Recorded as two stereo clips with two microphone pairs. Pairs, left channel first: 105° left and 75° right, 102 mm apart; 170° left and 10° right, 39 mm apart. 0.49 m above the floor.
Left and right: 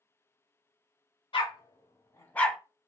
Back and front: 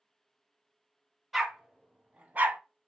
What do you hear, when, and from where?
1.3 s a dog barking: 70° left, 1.2 m; by 2.6 s 10° left, 0.6 m